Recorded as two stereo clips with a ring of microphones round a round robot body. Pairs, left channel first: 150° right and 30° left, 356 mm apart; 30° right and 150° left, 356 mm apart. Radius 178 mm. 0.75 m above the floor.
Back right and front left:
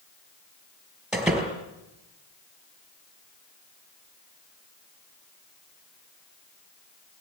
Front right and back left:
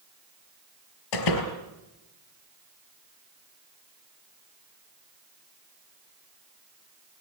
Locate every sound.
1.1 s a door slam: 60° right, 5 m